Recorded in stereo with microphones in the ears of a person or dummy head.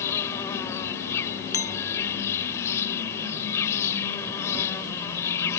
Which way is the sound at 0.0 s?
15° left (ahead or behind).